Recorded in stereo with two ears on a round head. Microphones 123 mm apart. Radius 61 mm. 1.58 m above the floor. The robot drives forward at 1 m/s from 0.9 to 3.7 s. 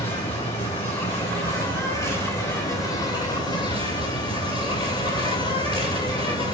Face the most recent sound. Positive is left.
turn(degrees=30)  # may be behind; listen again after turning